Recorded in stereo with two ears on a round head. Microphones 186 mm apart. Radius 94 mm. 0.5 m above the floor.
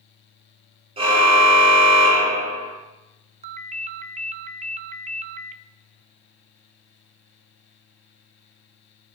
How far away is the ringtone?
About 0.7 m.